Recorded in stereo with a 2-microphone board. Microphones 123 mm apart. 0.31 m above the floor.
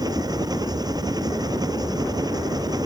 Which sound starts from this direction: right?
An engine running, at 0.0 s.